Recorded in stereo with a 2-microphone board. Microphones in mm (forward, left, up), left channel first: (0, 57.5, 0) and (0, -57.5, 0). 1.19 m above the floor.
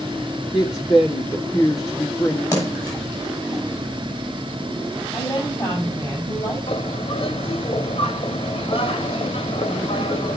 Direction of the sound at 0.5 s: 35° left (ahead or behind).